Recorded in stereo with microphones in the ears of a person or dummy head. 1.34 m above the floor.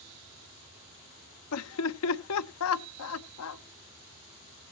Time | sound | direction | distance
1.5 | laughter | 75° left (ahead or behind) | 0.8 m